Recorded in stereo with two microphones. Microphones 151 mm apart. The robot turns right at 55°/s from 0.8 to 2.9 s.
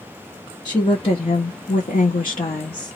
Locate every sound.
0.7 s a woman speaking: 30° left, 1.0 m; by 3.0 s 145° left, 1.0 m